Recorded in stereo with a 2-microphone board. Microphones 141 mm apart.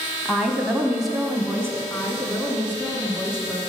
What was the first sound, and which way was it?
A woman speaking, 5° left (ahead or behind).